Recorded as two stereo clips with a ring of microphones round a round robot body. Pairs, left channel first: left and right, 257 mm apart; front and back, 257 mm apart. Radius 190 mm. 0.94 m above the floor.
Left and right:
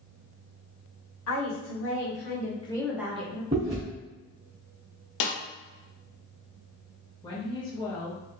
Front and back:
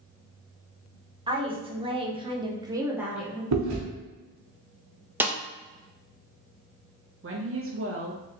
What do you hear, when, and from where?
1.3 s a woman speaking: 110° left, 1.8 m; by 3.4 s 90° right, 0.9 m
3.5 s chewing: 165° right, 1.0 m
5.2 s a snare drum: 95° left, 0.8 m
7.2 s a woman speaking: 160° left, 1.0 m